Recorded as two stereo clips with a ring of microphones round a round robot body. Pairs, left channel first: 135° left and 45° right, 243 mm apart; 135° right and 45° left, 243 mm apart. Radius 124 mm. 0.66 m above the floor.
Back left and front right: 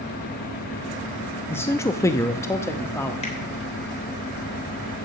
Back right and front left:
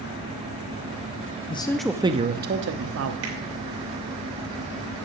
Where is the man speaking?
155° right, 0.7 m; by 3.1 s 55° left, 1.2 m.